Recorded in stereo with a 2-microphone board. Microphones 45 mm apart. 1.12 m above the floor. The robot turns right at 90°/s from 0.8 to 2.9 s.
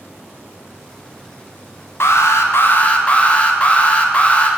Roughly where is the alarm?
Left.